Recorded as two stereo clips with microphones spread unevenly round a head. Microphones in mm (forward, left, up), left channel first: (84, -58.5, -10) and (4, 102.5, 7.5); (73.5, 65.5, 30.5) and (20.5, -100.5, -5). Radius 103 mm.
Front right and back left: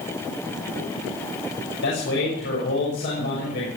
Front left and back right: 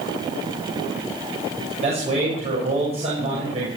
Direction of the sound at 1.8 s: 55° right.